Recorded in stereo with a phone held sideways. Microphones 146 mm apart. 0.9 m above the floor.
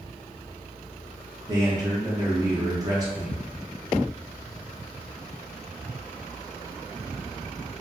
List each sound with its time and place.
1.5 s a man speaking: 25° right (ahead or behind), 0.6 m